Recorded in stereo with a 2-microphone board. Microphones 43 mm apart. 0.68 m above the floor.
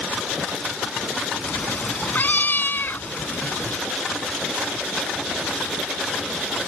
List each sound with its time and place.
1.4 s a cat meowing: 40° left (ahead or behind); by 3.8 s 60° left (ahead or behind)